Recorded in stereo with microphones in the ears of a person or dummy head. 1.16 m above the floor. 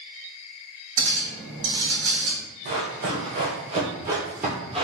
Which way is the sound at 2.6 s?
45° right (ahead or behind).